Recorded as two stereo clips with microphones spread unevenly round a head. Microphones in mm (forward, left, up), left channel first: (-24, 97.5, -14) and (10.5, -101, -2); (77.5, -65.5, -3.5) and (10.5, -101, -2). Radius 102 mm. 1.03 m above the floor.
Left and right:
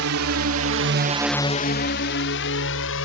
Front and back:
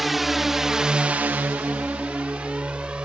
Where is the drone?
65° right; by 3.0 s 125° left.